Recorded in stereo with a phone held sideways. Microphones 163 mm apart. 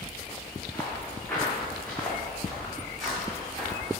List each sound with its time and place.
0.7 s footsteps: 10° left (ahead or behind), 3.5 m; by 3.9 s centre (ahead or behind), 5 m